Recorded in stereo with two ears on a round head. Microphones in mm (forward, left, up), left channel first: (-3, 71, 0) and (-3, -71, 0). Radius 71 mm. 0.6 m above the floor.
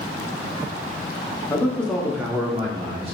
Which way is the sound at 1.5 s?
20° left (ahead or behind).